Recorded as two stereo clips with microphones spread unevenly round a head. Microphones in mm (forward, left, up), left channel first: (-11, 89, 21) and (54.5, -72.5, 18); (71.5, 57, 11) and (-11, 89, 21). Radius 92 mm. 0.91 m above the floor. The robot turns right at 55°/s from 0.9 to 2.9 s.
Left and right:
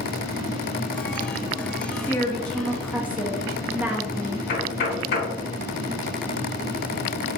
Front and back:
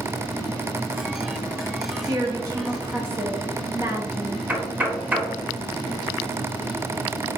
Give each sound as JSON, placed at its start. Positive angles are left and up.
{"t": 1.9, "sound": "a woman speaking", "azimuth_deg": 165, "distance_m": 0.7}
{"t": 4.5, "sound": "knocking", "azimuth_deg": 85, "distance_m": 1.0}